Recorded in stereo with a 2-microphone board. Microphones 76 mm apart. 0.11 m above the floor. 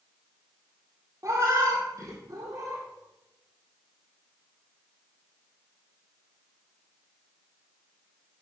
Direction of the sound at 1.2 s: 45° right (ahead or behind).